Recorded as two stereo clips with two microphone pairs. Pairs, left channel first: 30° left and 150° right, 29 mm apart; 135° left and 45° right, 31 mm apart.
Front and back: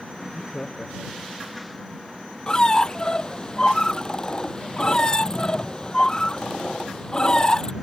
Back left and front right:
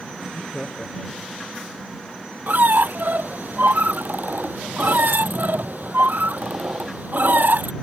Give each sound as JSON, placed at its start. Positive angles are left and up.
{"t": 0.2, "sound": "laughter", "azimuth_deg": 80}
{"t": 2.5, "sound": "a squeak", "azimuth_deg": -35}